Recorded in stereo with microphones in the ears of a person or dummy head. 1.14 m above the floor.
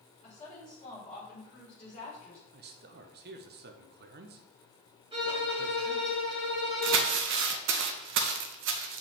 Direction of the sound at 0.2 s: 35° left (ahead or behind).